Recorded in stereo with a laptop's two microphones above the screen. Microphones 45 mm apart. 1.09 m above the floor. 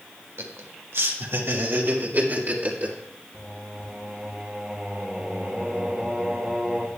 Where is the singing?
15° right (ahead or behind), 1.9 m.